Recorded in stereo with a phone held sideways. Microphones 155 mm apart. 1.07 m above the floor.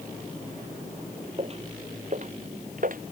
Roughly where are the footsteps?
Right.